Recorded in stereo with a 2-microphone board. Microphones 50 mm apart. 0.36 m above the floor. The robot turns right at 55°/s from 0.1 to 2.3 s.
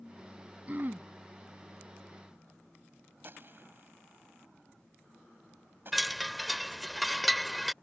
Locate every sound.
0.7 s throat clearing: 35° right (ahead or behind); by 1.1 s 55° right (ahead or behind)
3.2 s a gunshot: 50° right (ahead or behind)
5.9 s a chime: centre (ahead or behind)